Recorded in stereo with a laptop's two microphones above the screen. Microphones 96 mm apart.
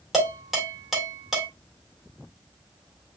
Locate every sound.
0.1 s dishes clattering: centre (ahead or behind), 2 m